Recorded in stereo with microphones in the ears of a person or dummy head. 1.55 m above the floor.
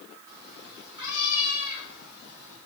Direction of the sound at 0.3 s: 25° right (ahead or behind).